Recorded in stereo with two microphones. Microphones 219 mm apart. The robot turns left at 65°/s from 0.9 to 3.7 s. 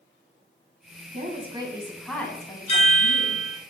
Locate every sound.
1.1 s a woman speaking: 120° right, 1.6 m; by 3.5 s 85° left, 1.6 m
2.7 s a chime: 145° left, 2.5 m; by 3.6 s 85° left, 2.5 m